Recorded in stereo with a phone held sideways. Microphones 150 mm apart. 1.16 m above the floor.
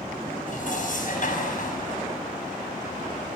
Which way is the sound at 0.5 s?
60° left (ahead or behind).